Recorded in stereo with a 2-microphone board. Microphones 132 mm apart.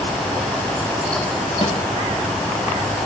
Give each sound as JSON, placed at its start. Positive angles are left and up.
{"t": 1.6, "sound": "a snare drum", "side_deg": 50, "distance_m": 5.0}